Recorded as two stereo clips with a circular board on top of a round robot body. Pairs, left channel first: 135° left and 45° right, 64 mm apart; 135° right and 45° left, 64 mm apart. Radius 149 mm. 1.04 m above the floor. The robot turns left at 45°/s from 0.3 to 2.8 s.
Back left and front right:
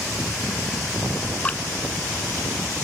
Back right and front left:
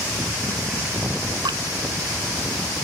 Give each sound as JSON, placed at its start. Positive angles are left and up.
{"t": 1.4, "sound": "dripping", "azimuth_deg": 65}